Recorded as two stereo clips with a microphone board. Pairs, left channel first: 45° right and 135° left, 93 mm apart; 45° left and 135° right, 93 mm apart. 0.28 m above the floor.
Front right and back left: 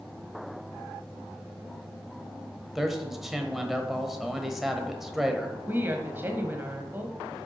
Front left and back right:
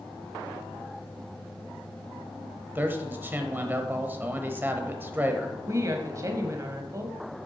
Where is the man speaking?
145° right, 0.9 m.